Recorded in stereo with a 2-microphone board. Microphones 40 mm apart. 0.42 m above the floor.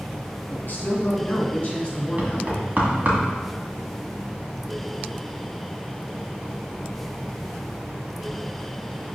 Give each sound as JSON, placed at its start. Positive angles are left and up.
{"t": 0.5, "sound": "a man speaking", "side_deg": 50, "distance_m": 3.0}
{"t": 2.2, "sound": "knocking", "side_deg": -45, "distance_m": 2.0}